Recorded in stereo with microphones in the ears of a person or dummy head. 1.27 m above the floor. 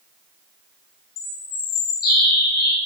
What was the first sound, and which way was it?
A bird, 55° left (ahead or behind).